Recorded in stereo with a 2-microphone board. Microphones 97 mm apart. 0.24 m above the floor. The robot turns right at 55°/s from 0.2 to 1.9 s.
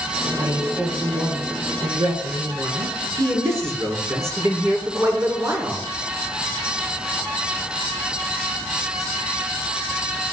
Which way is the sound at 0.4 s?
155° right.